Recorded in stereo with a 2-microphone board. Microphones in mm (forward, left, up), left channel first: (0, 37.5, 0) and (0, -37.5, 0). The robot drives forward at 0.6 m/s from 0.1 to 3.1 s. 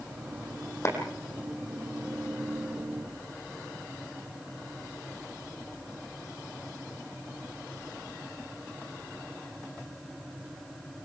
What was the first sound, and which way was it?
A clap, 40° left (ahead or behind).